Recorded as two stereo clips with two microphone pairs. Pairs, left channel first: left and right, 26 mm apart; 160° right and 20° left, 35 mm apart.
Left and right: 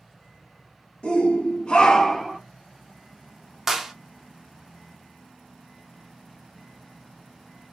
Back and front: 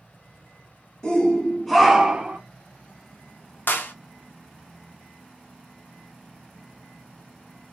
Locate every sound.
1.0 s a shout: 130° left, 1.4 m; by 2.4 s 5° right, 0.7 m
3.7 s a clap: 165° right, 0.6 m